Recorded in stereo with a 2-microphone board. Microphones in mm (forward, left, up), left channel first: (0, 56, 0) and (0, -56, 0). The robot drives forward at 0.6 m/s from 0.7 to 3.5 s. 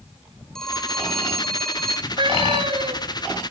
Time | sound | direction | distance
0.6 | a phone ringing | 5° left (ahead or behind) | 1.5 m
2.1 | a cat meowing | 45° right (ahead or behind) | 2.5 m